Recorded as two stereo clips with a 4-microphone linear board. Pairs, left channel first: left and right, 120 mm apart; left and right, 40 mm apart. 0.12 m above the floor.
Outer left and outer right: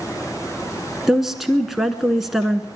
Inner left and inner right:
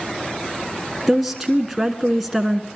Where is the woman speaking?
5° right (ahead or behind), 1.1 m.